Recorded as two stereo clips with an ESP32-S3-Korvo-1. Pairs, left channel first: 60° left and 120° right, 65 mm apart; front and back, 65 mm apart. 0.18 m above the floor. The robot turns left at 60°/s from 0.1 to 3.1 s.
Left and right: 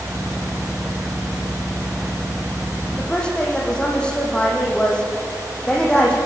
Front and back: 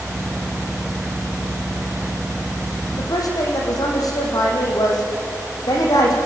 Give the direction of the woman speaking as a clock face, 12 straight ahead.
12 o'clock.